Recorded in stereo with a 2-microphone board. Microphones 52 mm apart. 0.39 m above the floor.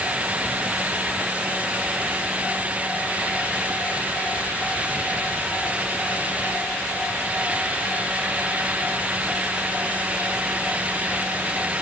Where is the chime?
I don't hear a chime.